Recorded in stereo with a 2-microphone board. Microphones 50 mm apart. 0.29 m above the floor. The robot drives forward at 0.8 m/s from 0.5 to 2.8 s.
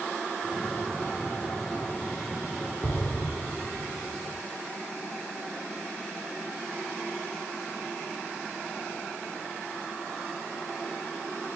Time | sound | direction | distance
2.8 | an explosion | 40° left (ahead or behind) | 1.5 m